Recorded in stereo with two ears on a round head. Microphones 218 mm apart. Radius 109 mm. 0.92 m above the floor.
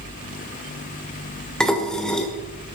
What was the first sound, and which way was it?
Dishes clattering, 5° left (ahead or behind).